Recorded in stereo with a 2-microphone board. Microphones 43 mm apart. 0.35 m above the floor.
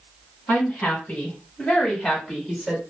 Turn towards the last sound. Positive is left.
turn(degrees=0)  # may be behind; listen again after turning